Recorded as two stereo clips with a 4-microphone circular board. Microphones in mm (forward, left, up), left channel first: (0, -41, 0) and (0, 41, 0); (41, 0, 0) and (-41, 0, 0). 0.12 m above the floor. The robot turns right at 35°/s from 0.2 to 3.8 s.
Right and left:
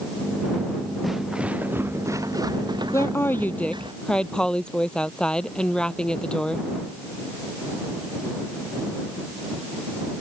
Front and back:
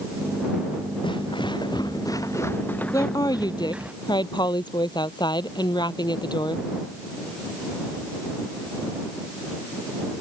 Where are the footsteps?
Straight ahead; by 3.9 s 105° left.